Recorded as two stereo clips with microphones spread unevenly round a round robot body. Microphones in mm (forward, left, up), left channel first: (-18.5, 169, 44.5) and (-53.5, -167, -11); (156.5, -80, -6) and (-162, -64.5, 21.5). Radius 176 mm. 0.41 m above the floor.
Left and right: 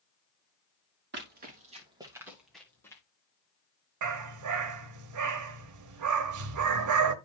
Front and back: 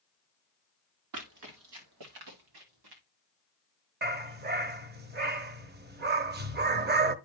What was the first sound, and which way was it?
Running footsteps, 155° right.